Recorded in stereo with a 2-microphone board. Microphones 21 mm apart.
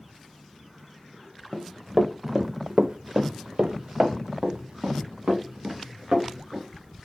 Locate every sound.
1.5 s running footsteps: 15° left (ahead or behind), 0.9 m; by 6.7 s 55° right (ahead or behind), 2.5 m